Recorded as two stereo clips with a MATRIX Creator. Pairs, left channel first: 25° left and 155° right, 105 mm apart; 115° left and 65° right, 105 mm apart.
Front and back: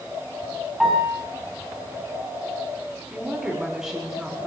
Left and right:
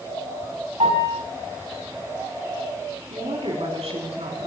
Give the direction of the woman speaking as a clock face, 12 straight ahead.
2 o'clock.